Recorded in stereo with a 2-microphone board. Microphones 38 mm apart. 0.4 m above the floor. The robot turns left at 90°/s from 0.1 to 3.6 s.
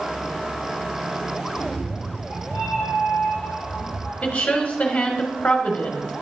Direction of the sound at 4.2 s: 30° left (ahead or behind).